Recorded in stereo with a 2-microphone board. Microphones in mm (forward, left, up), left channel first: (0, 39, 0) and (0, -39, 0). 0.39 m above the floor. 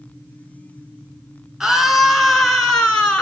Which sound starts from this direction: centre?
A scream, at 1.6 s.